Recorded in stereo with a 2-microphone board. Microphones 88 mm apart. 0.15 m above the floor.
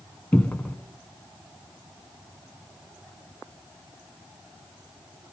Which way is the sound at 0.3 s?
15° left (ahead or behind).